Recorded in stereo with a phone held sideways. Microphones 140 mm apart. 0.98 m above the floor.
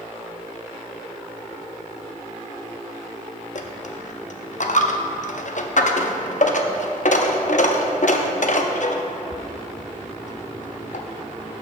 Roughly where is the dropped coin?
Left.